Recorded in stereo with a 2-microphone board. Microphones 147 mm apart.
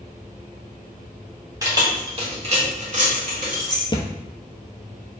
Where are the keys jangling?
20° right (ahead or behind), 1.0 m; by 3.8 s 60° right (ahead or behind), 1.6 m.